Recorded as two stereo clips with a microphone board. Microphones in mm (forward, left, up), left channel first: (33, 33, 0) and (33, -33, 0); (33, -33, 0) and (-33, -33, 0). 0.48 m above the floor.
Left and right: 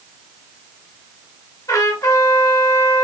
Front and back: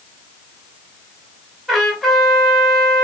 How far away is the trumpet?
About 2.5 m.